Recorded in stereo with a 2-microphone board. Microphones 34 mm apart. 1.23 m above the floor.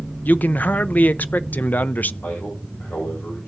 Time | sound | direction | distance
0.2 | a man speaking | 55° left (ahead or behind) | 0.6 m
2.2 | a man speaking | 85° left | 5.5 m